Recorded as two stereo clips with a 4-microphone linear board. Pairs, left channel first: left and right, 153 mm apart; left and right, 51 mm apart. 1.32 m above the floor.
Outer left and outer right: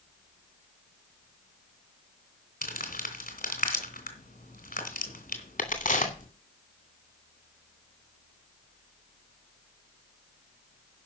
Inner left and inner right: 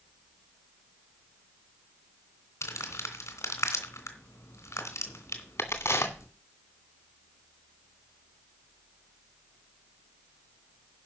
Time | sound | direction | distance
2.6 | crumpling | 70° left (ahead or behind) | 2.5 m
5.6 | a crack | 60° left (ahead or behind) | 2.5 m